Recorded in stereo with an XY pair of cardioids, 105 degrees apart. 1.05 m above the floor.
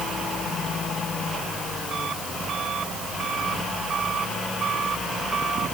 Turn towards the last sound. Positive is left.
No sound to turn to.